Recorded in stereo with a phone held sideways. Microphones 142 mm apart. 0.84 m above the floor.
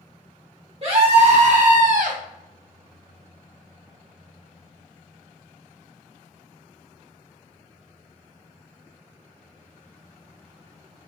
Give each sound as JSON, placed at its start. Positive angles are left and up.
{"t": 0.8, "sound": "a scream", "side_deg": -45, "distance_m": 1.6}